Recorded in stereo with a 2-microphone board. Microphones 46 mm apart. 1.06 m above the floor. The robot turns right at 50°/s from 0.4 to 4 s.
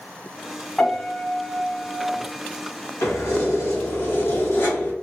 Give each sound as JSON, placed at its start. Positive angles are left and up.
{"t": 0.8, "sound": "a piano", "azimuth_deg": 5, "distance_m": 1.6}
{"t": 3.0, "sound": "keys jangling", "azimuth_deg": 75, "distance_m": 1.3}